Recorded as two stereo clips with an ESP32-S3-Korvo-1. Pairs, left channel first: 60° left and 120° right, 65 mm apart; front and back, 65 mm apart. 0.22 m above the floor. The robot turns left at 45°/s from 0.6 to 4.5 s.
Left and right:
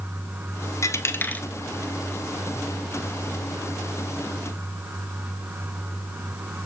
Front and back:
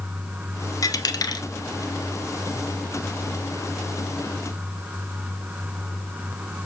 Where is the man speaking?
No man speaking in this recording.